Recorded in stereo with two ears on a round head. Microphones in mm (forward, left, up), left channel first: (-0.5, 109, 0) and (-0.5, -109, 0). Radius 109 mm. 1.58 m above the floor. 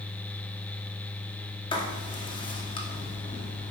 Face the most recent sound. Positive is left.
turn(degrees=20)  # may be behind; listen again after turning